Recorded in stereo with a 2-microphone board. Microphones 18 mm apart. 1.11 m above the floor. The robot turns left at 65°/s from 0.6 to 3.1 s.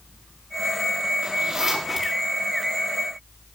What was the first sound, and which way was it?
A zipper, 60° right (ahead or behind).